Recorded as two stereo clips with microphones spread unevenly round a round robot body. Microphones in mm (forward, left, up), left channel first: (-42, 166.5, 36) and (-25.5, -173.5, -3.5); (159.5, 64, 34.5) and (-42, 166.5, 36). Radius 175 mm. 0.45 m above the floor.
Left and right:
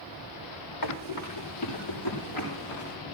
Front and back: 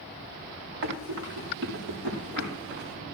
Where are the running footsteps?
125° left, 7 m; by 3.0 s 115° left, 8 m.